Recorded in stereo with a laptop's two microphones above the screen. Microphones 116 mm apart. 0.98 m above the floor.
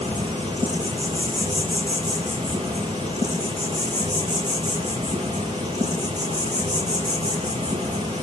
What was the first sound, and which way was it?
An insect, 75° right (ahead or behind).